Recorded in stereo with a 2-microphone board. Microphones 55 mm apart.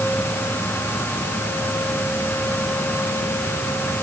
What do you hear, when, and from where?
Only background noise.